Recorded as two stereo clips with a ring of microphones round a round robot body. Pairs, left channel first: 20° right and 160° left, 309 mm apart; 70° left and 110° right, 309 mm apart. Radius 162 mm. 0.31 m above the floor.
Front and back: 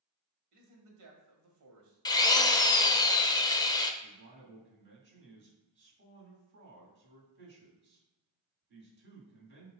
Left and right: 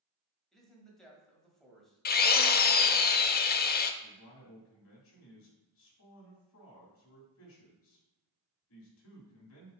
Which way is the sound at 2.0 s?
45° left.